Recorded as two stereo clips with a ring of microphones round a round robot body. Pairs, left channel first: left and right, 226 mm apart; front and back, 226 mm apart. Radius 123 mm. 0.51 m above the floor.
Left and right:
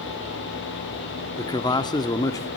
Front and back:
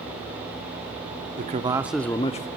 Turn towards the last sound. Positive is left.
turn(degrees=25)